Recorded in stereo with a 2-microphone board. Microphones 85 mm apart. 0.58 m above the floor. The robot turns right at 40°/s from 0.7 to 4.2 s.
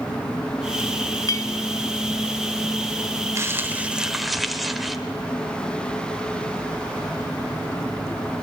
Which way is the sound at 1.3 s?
45° left (ahead or behind).